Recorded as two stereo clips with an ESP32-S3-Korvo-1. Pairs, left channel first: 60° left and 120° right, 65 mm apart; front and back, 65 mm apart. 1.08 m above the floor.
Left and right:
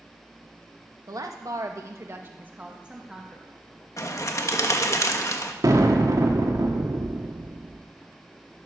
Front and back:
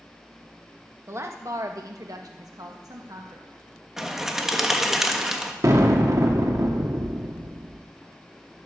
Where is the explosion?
145° right, 2 m.